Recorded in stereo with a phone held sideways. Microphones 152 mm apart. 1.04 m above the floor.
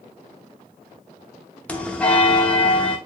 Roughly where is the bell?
Centre.